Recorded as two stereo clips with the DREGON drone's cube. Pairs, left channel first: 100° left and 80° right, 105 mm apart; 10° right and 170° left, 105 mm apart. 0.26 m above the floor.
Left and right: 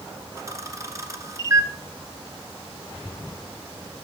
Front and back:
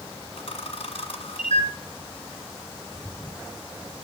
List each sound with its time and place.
0.4 s a camera shutter: 20° right, 1.6 m